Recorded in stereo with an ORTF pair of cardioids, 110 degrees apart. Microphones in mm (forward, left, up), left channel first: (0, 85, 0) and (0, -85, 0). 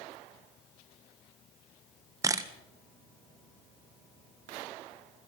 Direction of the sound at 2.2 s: 20° right.